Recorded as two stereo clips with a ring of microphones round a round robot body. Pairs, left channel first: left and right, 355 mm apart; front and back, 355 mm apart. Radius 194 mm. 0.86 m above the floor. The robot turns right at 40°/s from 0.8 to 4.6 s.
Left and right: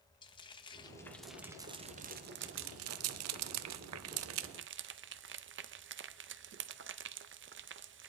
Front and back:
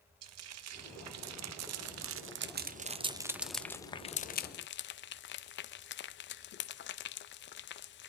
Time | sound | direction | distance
0.2 | frying | 160° left | 0.5 m